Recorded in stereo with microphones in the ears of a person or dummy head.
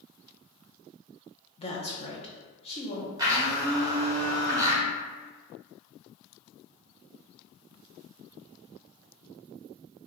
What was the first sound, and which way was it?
A woman speaking, 40° left (ahead or behind).